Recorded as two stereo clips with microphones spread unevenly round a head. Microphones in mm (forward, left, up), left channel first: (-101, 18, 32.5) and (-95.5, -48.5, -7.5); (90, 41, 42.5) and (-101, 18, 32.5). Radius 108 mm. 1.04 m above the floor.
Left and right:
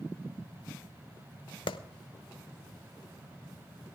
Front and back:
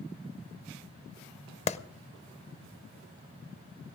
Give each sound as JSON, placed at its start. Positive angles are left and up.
{"t": 1.7, "sound": "a clap", "azimuth_deg": 60, "distance_m": 0.7}